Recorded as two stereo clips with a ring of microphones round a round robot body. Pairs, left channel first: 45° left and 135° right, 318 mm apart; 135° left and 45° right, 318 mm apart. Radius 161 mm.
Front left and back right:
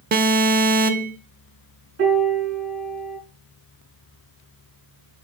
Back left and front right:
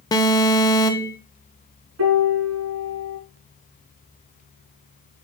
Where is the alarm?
160° right, 0.6 m.